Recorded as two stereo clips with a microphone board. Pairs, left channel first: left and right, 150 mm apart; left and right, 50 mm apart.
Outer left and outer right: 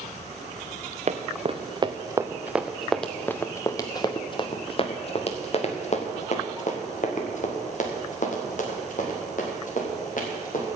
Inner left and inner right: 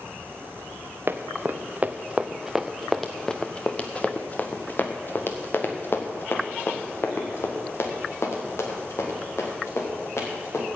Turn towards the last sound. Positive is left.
turn(degrees=65)  # may be behind; listen again after turning